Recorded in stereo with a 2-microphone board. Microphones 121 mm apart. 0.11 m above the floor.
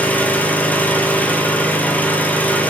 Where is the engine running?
15° left (ahead or behind), 1.2 m.